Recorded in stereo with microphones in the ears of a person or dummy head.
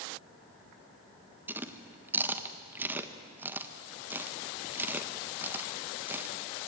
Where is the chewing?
15° right (ahead or behind), 1.3 m.